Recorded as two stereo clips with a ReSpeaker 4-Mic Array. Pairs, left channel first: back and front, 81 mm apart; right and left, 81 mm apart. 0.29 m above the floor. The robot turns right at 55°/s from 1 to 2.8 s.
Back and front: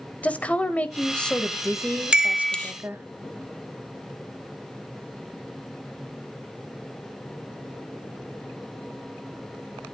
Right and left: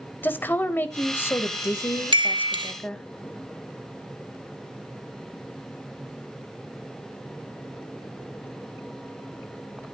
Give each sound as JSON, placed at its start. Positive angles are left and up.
{"t": 0.2, "sound": "a woman speaking", "azimuth_deg": -125, "distance_m": 1.0}
{"t": 2.1, "sound": "a chime", "azimuth_deg": 80, "distance_m": 1.0}